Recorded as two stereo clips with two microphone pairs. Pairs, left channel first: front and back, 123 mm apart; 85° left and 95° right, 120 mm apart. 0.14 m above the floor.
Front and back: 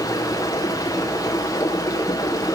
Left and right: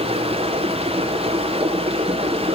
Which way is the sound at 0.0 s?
65° right.